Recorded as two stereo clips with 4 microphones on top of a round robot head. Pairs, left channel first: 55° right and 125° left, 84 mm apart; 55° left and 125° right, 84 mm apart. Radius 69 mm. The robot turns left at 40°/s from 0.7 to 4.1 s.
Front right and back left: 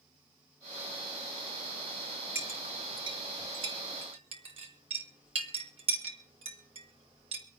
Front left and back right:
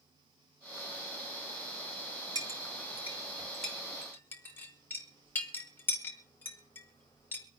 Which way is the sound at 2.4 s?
170° right.